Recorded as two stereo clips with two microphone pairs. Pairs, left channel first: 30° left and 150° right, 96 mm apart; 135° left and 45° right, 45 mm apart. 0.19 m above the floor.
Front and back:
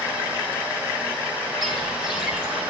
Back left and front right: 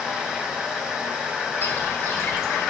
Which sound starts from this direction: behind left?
Footsteps, at 1.6 s.